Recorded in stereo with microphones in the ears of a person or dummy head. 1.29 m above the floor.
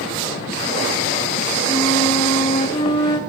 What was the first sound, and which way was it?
A flute, 25° left (ahead or behind).